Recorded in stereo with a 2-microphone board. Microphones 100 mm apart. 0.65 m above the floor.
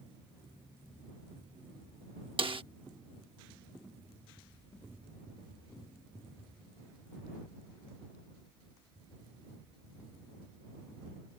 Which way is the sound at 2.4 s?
65° right (ahead or behind).